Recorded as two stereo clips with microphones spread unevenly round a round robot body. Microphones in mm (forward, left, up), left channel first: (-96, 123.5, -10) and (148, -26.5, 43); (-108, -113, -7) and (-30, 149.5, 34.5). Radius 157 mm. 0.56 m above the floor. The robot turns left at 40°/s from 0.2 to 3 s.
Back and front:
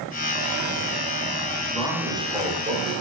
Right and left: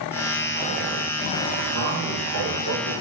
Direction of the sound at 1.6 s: 65° left.